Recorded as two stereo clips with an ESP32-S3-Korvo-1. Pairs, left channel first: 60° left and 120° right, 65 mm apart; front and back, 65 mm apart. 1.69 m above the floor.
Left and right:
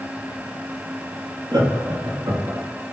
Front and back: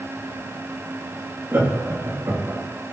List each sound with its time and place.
1.5 s laughter: 130° right, 3 m; by 2.6 s 140° right, 3 m